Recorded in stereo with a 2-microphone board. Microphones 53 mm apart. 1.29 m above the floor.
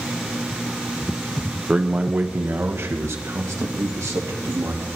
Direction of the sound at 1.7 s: 20° right (ahead or behind).